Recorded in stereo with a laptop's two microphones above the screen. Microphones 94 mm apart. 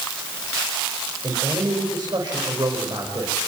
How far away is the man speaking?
About 5.5 m.